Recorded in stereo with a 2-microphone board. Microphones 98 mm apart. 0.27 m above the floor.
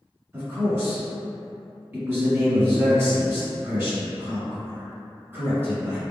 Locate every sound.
0.3 s a man speaking: 25° right (ahead or behind), 1.5 m